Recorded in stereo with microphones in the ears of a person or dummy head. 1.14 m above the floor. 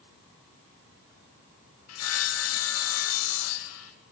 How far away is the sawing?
About 1.3 m.